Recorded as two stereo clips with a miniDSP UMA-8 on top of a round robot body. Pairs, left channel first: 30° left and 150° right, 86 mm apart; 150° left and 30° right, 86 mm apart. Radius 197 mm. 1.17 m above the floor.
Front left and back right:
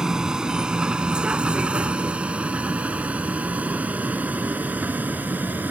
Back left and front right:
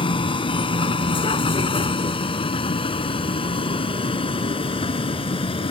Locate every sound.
0.0 s a vehicle: 130° left; by 5.7 s 140° left